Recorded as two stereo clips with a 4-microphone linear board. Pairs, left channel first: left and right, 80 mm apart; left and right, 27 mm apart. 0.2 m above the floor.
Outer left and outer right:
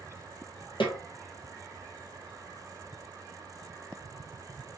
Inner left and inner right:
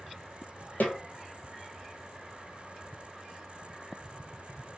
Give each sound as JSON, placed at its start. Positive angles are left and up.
{"t": 0.8, "sound": "a snare drum", "side_deg": 75, "distance_m": 1.1}